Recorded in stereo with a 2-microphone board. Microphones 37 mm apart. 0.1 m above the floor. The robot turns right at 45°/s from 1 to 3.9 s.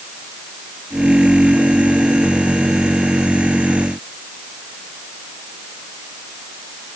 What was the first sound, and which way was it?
Only background noise.